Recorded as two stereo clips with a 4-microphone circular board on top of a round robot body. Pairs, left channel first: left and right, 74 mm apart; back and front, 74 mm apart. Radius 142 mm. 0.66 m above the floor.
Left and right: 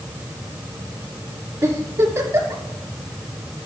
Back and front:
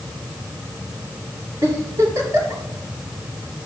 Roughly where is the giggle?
Ahead right.